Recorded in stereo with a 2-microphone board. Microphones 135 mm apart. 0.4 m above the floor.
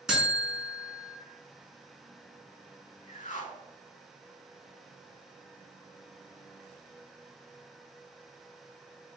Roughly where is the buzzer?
Centre.